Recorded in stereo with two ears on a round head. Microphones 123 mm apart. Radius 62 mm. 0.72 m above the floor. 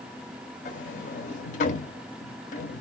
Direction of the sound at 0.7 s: 65° left (ahead or behind).